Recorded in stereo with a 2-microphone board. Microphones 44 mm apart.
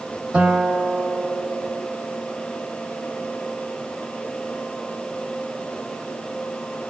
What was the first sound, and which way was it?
A guitar, 25° right (ahead or behind).